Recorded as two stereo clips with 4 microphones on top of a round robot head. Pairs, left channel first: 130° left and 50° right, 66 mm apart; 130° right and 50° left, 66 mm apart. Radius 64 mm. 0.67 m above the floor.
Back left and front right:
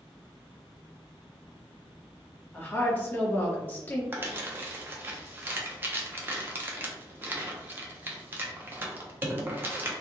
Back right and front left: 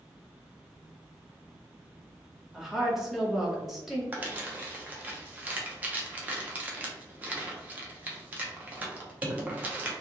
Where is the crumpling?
5° right, 0.8 m.